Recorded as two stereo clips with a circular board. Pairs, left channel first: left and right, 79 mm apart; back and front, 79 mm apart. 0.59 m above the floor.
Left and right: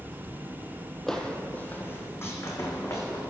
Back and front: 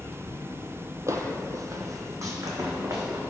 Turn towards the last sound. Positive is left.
turn(degrees=45)